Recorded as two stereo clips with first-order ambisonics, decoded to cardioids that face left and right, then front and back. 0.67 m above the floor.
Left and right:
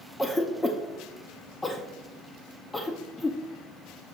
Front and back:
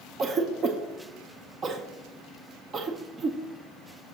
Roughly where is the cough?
Behind.